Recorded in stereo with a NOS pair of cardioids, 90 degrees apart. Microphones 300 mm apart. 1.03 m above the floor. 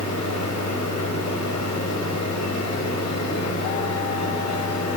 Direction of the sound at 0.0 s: 65° left.